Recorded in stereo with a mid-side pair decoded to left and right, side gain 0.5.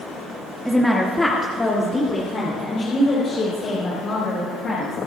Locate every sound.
0.7 s a woman speaking: 5° right, 1.8 m; by 5.0 s 55° left, 6 m